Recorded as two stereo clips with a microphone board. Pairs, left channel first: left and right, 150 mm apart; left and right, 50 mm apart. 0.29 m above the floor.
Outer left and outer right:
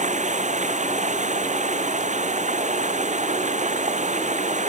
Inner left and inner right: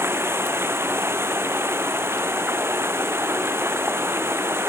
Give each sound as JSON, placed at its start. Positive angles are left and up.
{"t": 0.0, "sound": "running water", "side_deg": -55}